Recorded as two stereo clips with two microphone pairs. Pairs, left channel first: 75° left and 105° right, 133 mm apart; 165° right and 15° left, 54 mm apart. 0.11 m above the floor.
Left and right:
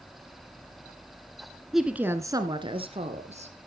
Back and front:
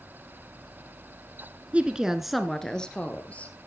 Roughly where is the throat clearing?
No throat clearing in this recording.